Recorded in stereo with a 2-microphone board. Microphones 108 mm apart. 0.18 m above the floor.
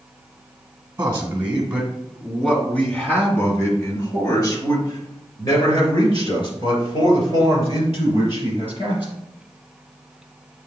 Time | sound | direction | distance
1.0 | a man speaking | 20° right (ahead or behind) | 1.8 m